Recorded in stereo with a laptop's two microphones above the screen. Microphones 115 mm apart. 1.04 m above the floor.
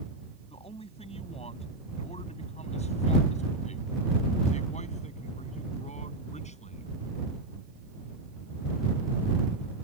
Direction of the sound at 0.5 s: 60° left (ahead or behind).